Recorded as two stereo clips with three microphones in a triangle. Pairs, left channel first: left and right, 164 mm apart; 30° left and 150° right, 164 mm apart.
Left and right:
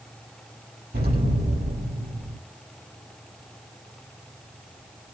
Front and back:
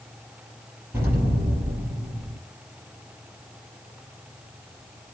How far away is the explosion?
About 5.5 m.